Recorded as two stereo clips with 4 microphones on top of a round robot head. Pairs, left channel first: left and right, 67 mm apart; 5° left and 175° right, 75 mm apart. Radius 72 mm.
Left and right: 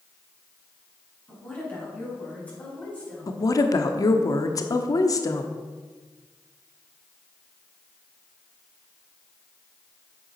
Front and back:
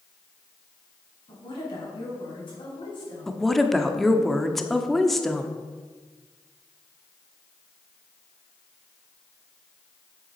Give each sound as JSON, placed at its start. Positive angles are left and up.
{"t": 1.3, "sound": "a woman speaking", "azimuth_deg": 20, "distance_m": 4.5}
{"t": 3.3, "sound": "a woman speaking", "azimuth_deg": 90, "distance_m": 0.9}